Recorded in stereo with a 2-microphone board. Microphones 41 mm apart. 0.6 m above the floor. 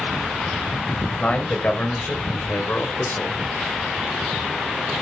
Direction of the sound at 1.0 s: 30° left (ahead or behind).